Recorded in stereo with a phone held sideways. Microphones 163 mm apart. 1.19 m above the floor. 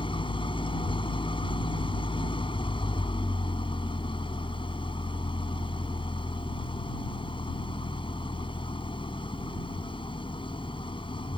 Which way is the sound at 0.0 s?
30° left (ahead or behind).